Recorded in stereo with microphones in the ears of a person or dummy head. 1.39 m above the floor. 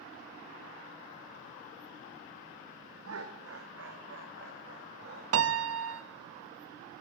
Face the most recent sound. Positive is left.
turn(degrees=-90)